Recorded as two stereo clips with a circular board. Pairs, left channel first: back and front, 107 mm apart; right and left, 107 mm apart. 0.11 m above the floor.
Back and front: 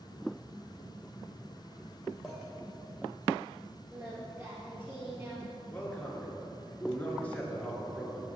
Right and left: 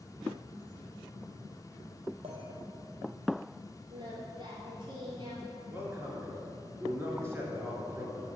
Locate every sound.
2.2 s a clink: 95° left, 2.5 m
3.9 s singing: 65° left, 2.5 m
5.7 s a man speaking: 120° left, 1.8 m